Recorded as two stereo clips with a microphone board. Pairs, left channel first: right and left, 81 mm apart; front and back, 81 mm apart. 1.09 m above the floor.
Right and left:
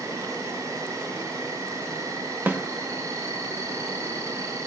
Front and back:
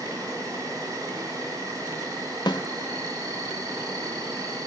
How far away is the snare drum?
About 1.3 m.